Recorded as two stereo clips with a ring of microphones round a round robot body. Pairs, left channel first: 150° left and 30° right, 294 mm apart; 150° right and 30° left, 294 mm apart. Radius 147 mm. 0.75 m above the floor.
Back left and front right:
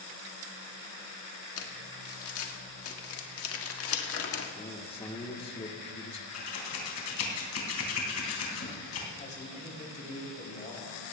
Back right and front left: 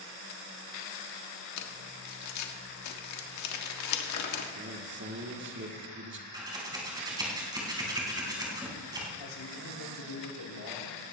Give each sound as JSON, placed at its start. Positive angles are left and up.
{"t": 1.6, "sound": "crumpling", "azimuth_deg": -170, "distance_m": 1.6}
{"t": 4.5, "sound": "a man speaking", "azimuth_deg": 80, "distance_m": 1.9}
{"t": 6.3, "sound": "scissors", "azimuth_deg": 105, "distance_m": 3.5}
{"t": 9.2, "sound": "a man speaking", "azimuth_deg": -145, "distance_m": 3.5}